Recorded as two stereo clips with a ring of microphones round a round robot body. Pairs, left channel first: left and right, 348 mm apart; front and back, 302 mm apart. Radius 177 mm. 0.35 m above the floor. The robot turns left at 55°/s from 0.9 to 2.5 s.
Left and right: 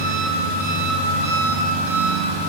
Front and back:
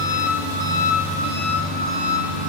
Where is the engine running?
35° right, 0.9 m; by 2.5 s 125° right, 0.9 m.